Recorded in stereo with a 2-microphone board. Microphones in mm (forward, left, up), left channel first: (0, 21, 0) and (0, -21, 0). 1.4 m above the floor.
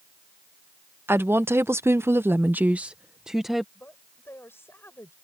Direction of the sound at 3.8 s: 70° left (ahead or behind).